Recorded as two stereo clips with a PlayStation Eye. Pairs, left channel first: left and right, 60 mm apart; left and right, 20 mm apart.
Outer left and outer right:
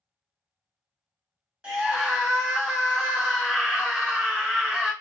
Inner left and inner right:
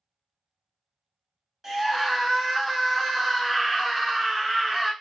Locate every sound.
1.6 s a scream: 15° right (ahead or behind), 1.2 m